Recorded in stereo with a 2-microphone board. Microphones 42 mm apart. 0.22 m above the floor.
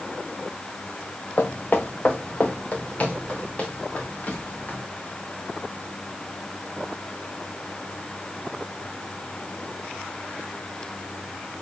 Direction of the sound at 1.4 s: 45° left (ahead or behind).